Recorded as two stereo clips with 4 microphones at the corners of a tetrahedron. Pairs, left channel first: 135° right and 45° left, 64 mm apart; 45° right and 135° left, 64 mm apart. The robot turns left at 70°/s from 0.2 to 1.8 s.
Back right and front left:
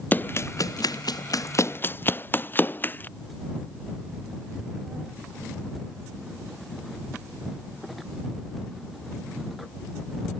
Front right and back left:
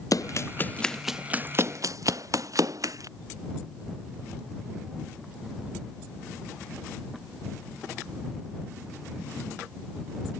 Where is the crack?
85° right.